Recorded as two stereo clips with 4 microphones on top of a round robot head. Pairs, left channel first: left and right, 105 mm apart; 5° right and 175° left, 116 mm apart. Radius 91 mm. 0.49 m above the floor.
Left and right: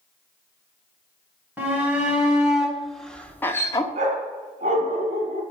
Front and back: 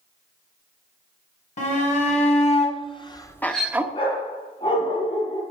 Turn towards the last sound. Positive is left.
turn(degrees=-65)